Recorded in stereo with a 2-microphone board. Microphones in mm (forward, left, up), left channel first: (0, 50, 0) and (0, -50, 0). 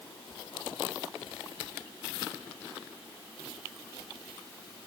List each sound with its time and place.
Only background noise.